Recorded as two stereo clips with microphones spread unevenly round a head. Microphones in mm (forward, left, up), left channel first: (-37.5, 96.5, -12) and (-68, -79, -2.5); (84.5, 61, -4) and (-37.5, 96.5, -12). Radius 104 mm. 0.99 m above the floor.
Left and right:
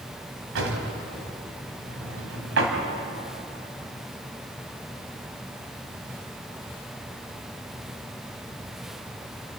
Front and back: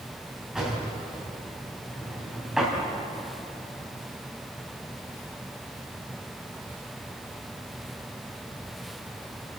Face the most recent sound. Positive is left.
turn(degrees=-110)